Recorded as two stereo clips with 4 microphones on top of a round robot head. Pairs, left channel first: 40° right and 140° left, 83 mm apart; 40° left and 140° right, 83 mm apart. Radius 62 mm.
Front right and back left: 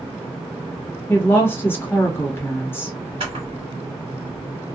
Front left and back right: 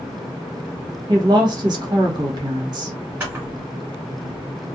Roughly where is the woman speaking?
Right.